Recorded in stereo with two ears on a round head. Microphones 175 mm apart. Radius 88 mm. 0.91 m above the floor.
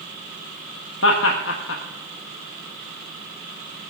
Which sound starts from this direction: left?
Laughter, at 1.0 s.